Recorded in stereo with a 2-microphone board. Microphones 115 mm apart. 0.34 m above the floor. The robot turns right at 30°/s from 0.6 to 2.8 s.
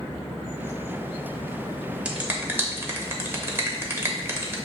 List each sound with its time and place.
2.0 s a finger snap: 10° right (ahead or behind), 0.7 m; by 4.6 s 20° right (ahead or behind), 0.7 m